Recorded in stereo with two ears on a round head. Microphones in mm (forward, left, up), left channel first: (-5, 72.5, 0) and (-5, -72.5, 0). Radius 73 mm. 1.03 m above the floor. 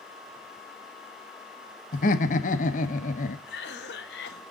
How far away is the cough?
About 1.2 m.